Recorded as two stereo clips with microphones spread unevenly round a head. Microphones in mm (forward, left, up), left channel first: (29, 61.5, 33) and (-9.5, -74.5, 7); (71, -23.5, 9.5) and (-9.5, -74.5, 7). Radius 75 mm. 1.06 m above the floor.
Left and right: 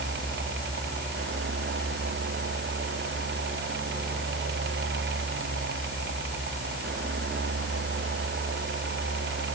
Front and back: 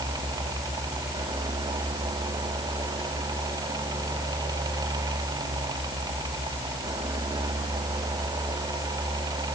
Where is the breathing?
I don't hear breathing.